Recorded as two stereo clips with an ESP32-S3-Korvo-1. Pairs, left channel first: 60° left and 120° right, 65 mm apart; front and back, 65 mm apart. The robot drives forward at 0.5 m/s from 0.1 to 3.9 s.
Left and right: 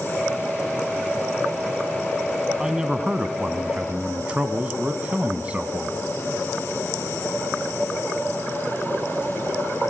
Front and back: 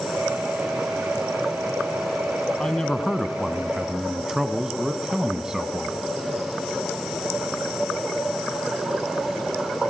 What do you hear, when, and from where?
2.6 s a man speaking: 50° right, 1.6 m; by 6.0 s 115° right, 1.6 m